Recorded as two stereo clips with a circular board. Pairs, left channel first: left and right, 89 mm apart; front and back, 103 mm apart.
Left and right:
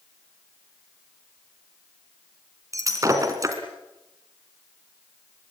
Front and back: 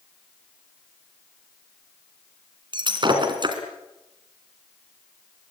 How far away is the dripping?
I don't hear dripping.